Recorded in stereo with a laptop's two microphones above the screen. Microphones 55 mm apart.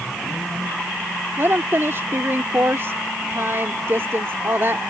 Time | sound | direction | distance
1.4 | a woman speaking | 50° right (ahead or behind) | ?